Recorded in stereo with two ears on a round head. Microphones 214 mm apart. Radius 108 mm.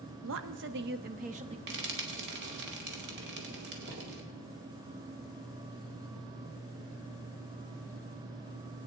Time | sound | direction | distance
0.2 | a woman speaking | 60° right (ahead or behind) | 1.0 m
1.7 | frying | 45° right (ahead or behind) | 2 m